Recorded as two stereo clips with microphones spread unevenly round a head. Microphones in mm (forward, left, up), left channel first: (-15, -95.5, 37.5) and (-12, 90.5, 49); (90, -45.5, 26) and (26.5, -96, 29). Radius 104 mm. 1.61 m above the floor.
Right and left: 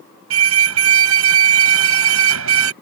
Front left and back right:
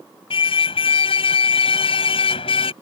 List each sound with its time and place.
0.3 s a car horn: 75° left